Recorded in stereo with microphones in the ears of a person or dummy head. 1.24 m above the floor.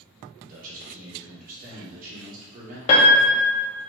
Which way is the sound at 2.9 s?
30° left (ahead or behind).